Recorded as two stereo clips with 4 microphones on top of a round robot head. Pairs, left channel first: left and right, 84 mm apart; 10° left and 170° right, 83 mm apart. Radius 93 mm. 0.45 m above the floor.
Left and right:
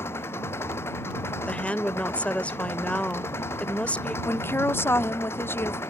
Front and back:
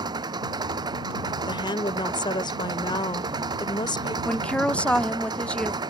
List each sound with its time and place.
0.0 s an engine running: 155° left
1.5 s a woman speaking: 15° left
4.2 s a woman speaking: 70° left